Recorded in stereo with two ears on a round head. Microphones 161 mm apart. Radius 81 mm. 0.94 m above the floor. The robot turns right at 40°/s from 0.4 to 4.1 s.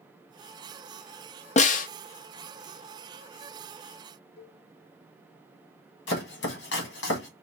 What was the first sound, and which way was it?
A snare drum, 35° left (ahead or behind).